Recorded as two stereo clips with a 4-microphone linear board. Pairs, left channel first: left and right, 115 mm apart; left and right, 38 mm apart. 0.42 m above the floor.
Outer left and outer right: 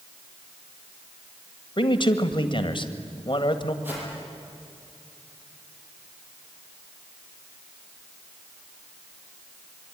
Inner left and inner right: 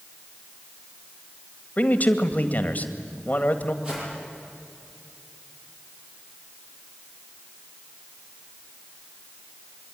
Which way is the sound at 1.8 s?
45° left (ahead or behind).